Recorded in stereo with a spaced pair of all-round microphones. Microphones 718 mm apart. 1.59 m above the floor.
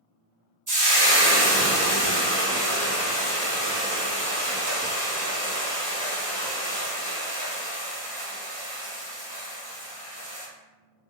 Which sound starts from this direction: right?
Frying, at 0.7 s.